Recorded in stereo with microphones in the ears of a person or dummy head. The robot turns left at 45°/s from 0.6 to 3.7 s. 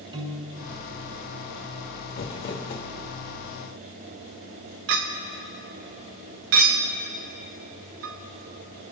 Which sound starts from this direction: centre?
A piano, at 0.1 s.